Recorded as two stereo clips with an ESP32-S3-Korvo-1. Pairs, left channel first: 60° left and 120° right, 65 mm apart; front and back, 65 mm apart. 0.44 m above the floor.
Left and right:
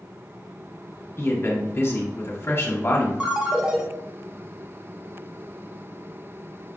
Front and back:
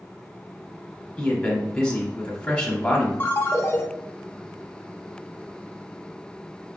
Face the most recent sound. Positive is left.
turn(degrees=-45)